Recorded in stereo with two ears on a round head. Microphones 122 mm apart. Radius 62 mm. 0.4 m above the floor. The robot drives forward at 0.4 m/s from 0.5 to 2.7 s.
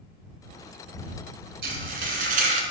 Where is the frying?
80° right, 1.2 m; by 2.6 s 60° right (ahead or behind), 1.3 m.